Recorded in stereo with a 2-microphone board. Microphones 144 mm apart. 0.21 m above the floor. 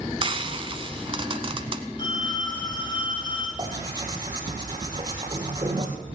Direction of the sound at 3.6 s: 30° right (ahead or behind).